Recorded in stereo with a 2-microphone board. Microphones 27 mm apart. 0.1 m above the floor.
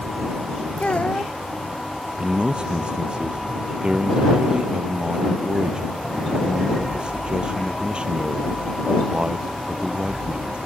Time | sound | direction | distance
0.8 | a child speaking | 55° left (ahead or behind) | ?
2.2 | a man speaking | 40° right (ahead or behind) | ?